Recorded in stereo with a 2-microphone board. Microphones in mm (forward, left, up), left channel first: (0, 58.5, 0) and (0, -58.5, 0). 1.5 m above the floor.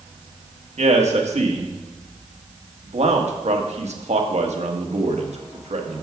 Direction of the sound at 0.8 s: 70° right (ahead or behind).